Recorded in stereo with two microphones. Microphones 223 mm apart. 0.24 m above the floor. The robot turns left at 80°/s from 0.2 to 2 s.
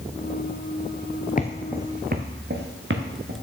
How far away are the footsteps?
About 0.6 m.